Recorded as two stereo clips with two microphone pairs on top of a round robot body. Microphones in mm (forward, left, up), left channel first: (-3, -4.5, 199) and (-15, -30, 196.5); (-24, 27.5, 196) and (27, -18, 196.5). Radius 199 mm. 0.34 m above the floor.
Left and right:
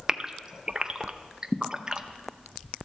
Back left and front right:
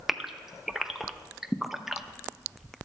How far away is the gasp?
About 0.9 m.